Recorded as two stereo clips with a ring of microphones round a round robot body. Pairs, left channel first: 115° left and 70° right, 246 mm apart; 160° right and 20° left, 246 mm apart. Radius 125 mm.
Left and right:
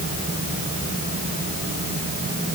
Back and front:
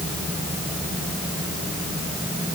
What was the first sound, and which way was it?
Only background noise.